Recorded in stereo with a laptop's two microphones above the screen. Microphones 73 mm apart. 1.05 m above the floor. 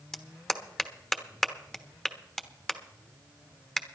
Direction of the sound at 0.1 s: 5° left (ahead or behind).